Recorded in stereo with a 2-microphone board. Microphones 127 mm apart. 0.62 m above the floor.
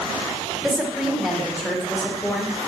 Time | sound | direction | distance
0.6 | a woman speaking | centre (ahead or behind) | 2 m